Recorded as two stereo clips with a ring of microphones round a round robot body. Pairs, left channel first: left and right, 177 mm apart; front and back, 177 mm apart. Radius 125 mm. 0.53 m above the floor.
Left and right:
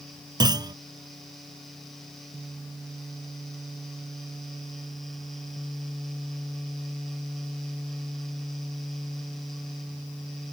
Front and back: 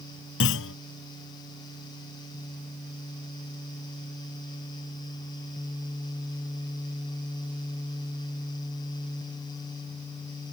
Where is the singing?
No singing in this recording.